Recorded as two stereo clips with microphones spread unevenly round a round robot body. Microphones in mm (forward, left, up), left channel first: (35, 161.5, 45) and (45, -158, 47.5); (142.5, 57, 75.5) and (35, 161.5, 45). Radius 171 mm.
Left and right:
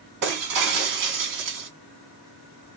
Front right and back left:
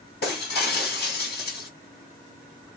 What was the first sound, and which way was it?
Breaking glass, 65° right.